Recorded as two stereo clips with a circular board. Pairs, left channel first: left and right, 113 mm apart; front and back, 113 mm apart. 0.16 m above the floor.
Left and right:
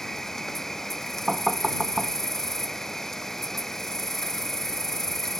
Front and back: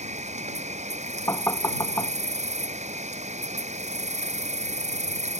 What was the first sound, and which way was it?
An insect, 175° left.